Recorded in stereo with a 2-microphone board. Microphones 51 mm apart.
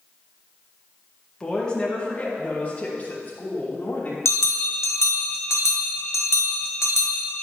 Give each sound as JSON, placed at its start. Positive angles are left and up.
{"t": 1.4, "sound": "a woman speaking", "side_deg": 15, "distance_m": 1.9}
{"t": 4.2, "sound": "a bell", "side_deg": 60, "distance_m": 1.1}